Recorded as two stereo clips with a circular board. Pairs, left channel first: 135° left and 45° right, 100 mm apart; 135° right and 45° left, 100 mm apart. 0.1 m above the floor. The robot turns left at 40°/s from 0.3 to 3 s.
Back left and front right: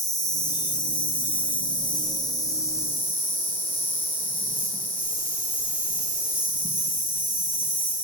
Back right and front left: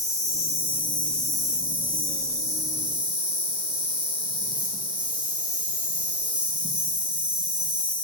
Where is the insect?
175° left, 1.6 m; by 8.0 s 70° left, 1.6 m.